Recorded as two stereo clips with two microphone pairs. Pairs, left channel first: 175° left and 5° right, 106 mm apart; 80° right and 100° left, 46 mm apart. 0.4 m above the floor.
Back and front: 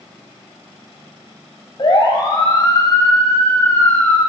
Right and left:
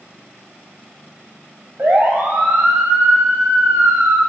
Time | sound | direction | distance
1.8 | a siren | 140° left | 3.5 m